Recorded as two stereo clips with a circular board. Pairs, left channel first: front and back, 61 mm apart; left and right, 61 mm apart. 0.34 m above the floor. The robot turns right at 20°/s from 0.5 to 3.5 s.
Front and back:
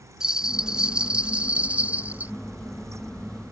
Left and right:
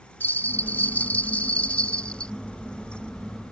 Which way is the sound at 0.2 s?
110° left.